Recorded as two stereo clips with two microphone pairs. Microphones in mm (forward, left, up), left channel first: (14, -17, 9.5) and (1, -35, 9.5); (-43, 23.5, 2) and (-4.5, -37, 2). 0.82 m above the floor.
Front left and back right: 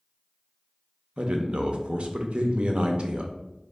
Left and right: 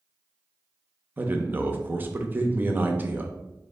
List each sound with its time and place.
1.2 s a man speaking: 115° right, 0.6 m